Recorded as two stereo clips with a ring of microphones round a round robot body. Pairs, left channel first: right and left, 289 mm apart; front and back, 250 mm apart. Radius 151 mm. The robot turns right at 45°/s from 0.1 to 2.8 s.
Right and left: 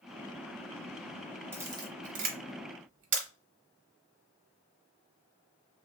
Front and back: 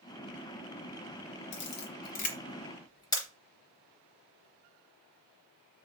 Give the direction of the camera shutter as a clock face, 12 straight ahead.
12 o'clock.